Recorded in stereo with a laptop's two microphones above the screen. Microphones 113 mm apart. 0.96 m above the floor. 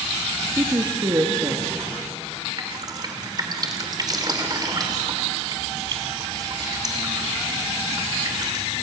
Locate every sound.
0.6 s a woman speaking: 30° right (ahead or behind), 1.4 m
2.6 s dripping: 35° right (ahead or behind), 2.5 m